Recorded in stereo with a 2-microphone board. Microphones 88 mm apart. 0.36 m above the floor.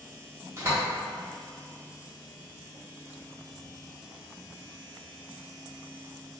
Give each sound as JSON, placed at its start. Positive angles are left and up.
{"t": 0.6, "sound": "a door slam", "side_deg": -30, "distance_m": 0.9}